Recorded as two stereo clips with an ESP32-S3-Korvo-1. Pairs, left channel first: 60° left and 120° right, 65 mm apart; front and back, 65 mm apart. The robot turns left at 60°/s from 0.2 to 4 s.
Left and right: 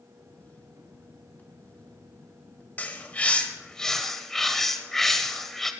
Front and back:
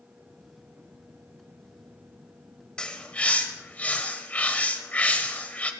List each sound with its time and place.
2.8 s a bird: 55° left, 1.4 m; by 5.7 s 15° right, 1.4 m